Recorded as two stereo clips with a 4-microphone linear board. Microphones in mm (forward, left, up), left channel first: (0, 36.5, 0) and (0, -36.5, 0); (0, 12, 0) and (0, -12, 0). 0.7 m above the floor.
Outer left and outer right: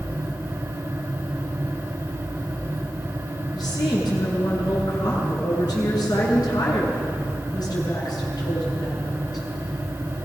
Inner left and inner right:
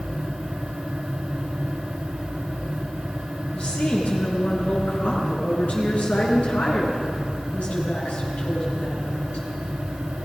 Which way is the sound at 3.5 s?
65° left (ahead or behind).